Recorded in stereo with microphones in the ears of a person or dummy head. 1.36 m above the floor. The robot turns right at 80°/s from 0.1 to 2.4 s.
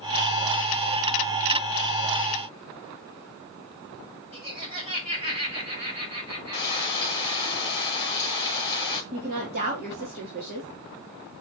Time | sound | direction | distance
4.3 | laughter | 40° right (ahead or behind) | 5.5 m
6.5 | frying | 20° left (ahead or behind) | 1.6 m
9.1 | a woman speaking | 55° right (ahead or behind) | 3 m